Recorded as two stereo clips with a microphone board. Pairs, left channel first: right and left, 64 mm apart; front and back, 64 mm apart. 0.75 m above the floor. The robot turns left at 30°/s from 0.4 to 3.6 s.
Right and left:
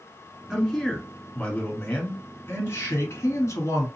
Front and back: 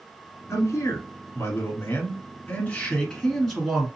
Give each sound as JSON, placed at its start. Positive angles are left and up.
{"t": 0.5, "sound": "a man speaking", "azimuth_deg": 10, "distance_m": 1.6}